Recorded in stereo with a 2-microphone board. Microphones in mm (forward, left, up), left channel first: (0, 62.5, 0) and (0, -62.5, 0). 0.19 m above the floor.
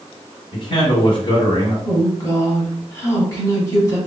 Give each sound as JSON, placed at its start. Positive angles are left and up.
{"t": 0.5, "sound": "a man speaking", "side_deg": 40, "distance_m": 1.7}
{"t": 1.9, "sound": "a woman speaking", "side_deg": 25, "distance_m": 1.4}